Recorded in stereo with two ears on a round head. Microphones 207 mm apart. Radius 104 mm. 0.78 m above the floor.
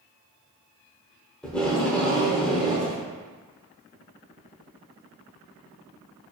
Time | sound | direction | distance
1.4 | tape being pulled | 5° left (ahead or behind) | 0.6 m